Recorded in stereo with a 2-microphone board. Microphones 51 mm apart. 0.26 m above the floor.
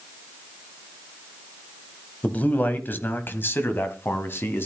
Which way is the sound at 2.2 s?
30° left (ahead or behind).